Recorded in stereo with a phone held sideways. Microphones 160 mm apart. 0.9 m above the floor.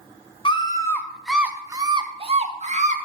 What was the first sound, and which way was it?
A scream, 30° left (ahead or behind).